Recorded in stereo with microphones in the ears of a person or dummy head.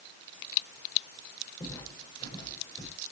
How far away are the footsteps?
About 10 m.